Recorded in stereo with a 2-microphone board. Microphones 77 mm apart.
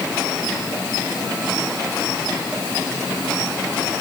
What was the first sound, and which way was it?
Only background noise.